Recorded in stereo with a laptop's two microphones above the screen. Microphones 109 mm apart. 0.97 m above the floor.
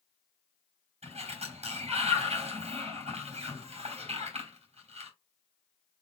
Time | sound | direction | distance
1.0 | a sliding door | 80° right | 2.5 m